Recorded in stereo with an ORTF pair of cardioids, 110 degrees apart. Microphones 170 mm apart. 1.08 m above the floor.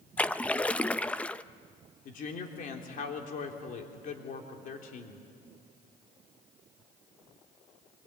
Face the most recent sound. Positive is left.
turn(degrees=60)